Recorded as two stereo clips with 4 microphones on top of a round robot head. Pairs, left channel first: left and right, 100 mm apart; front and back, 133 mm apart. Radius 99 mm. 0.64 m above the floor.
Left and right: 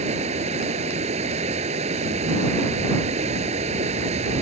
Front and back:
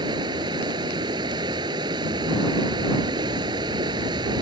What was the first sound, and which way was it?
Running water, 115° right.